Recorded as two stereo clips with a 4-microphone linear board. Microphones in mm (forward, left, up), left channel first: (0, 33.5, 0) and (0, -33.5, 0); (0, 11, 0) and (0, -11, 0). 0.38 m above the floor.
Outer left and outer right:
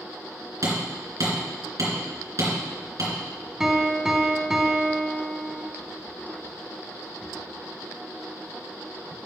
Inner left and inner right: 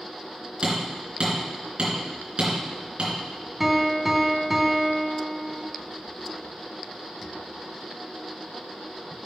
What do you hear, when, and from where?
0.6 s hammering: 50° right (ahead or behind), 3.5 m
3.6 s a piano: 10° right (ahead or behind), 1.1 m